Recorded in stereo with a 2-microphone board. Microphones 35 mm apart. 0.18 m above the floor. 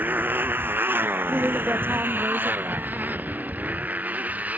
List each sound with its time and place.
0.0 s a motorcycle: 65° right (ahead or behind); by 4.6 s 45° right (ahead or behind)
1.3 s a woman speaking: 75° right (ahead or behind)